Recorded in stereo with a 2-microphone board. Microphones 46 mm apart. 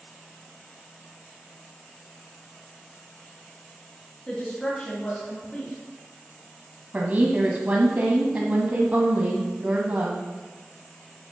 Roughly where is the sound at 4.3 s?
Centre.